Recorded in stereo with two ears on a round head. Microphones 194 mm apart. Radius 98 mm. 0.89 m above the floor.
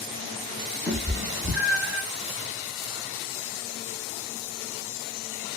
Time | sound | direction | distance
0.9 | a cat meowing | centre (ahead or behind) | 0.5 m